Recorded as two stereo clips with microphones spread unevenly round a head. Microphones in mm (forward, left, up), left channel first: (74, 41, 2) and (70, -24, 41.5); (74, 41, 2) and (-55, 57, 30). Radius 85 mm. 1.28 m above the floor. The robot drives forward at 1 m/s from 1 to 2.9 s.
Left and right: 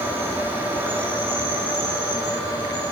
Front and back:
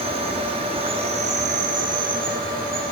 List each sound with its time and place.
0.0 s an insect: 145° right, 1.1 m; by 2.9 s 170° right, 3 m